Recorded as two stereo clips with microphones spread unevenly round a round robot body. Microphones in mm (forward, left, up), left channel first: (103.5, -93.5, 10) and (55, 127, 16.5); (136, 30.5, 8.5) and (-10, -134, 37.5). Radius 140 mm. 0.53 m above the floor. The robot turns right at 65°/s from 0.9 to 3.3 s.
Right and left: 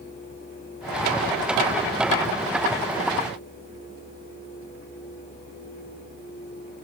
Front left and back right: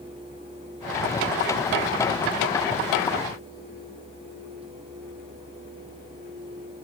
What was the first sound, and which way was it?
Only background noise.